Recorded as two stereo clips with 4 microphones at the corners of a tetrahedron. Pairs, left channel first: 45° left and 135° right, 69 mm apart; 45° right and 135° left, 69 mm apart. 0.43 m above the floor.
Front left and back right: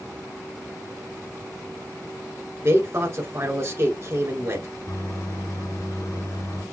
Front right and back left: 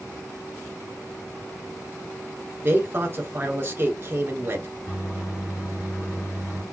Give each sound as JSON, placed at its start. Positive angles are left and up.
{"t": 2.6, "sound": "a man speaking", "azimuth_deg": -175, "distance_m": 1.8}
{"t": 4.9, "sound": "a microwave", "azimuth_deg": 5, "distance_m": 3.5}